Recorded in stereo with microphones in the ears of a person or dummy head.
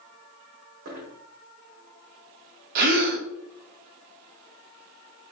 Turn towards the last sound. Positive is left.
turn(degrees=-50)  # may be behind; listen again after turning